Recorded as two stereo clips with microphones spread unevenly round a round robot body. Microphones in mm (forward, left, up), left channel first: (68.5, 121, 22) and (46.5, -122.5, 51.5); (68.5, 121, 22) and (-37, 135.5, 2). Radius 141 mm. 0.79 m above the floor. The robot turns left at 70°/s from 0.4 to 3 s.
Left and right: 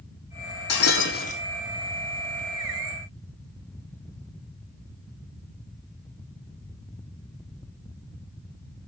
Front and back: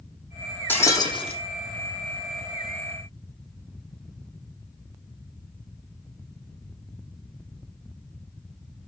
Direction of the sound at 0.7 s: 65° left.